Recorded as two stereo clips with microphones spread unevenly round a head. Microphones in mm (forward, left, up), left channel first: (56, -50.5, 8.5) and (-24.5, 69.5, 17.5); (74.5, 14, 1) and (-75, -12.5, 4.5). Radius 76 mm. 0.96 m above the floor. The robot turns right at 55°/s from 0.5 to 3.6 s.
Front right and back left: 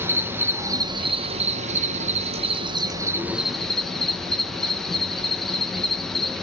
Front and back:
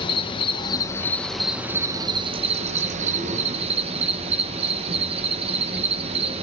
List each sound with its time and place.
0.0 s an insect: 50° left, 0.9 m; by 6.4 s 140° right, 0.9 m